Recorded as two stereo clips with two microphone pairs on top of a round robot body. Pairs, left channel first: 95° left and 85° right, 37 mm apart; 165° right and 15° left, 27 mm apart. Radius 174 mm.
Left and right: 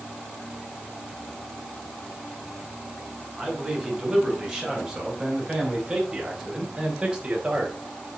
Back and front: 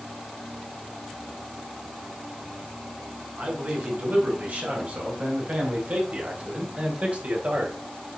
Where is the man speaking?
5° right, 5.5 m; by 7.8 s 20° right, 3.5 m.